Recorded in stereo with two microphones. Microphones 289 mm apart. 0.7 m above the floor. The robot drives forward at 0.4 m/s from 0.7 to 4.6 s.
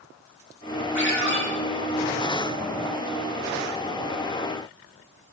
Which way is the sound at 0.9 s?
80° left.